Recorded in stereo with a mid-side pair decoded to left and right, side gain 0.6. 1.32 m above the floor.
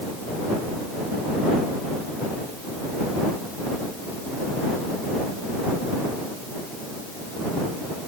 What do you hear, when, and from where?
Only background noise.